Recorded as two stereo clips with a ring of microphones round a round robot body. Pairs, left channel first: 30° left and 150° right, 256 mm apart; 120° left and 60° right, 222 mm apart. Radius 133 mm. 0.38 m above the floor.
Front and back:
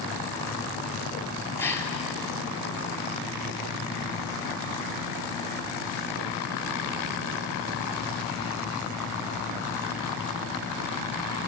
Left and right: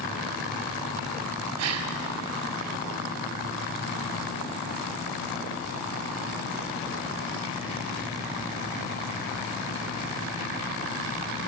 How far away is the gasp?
About 1.7 m.